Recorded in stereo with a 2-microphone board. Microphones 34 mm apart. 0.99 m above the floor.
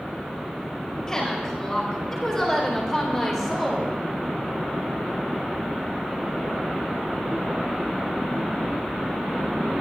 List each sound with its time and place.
1.1 s a woman speaking: 15° left (ahead or behind), 5 m; by 4.0 s 10° right (ahead or behind), 3 m